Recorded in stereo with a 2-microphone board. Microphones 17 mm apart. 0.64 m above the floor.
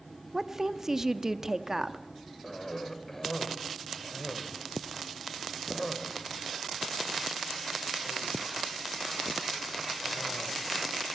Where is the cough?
20° left (ahead or behind), 2 m.